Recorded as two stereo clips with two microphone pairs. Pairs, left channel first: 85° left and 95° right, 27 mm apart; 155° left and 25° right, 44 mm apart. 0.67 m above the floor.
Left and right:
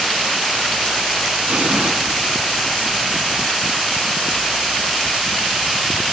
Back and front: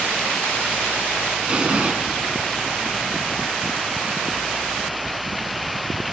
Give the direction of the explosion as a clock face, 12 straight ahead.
3 o'clock.